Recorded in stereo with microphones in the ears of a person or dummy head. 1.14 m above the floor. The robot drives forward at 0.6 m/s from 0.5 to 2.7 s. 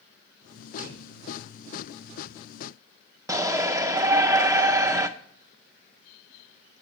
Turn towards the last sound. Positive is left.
turn(degrees=-15)  # may be behind; listen again after turning